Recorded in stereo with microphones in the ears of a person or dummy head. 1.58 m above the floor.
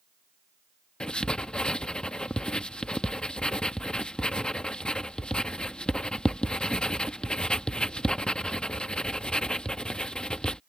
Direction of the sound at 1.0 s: 5° left (ahead or behind).